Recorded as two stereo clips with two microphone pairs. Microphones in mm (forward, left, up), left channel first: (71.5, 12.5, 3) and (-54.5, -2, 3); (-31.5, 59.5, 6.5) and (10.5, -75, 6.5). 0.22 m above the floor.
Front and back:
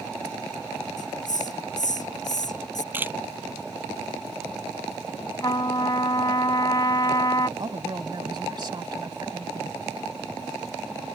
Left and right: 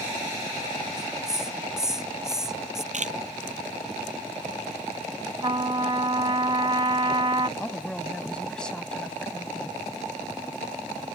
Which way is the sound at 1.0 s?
15° left.